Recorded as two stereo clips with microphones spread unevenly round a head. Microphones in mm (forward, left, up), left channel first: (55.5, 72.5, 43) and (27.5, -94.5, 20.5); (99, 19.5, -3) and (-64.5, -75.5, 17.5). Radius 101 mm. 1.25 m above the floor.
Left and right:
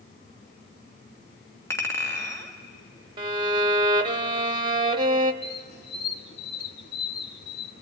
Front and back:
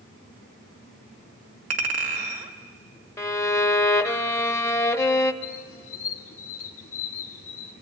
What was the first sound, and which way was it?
A clink, 155° left.